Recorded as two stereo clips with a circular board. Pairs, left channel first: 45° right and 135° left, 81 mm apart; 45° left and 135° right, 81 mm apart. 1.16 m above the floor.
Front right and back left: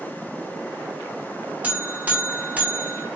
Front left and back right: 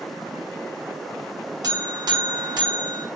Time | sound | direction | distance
1.6 | a buzzer | 155° right | 0.6 m